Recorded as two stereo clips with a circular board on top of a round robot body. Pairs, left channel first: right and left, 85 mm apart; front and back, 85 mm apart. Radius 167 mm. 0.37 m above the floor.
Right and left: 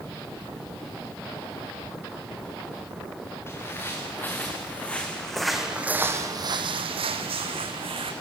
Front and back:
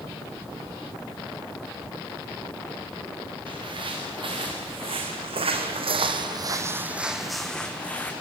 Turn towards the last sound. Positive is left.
turn(degrees=75)